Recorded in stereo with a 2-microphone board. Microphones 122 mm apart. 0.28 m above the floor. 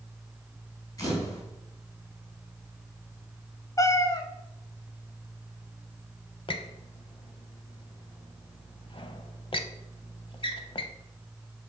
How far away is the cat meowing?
About 0.8 m.